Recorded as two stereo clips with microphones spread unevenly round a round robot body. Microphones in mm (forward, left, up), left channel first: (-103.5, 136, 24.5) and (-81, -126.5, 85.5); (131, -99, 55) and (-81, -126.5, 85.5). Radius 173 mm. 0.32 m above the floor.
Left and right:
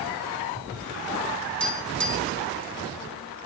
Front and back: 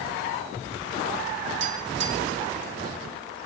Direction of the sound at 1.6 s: Straight behind.